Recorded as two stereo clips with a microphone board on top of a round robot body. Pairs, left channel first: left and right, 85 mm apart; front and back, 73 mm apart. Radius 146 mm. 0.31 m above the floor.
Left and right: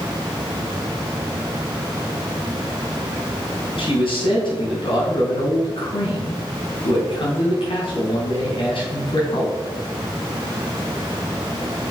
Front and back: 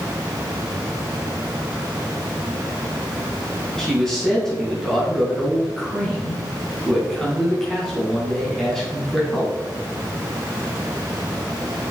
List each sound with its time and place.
3.8 s a man speaking: 85° left, 3.5 m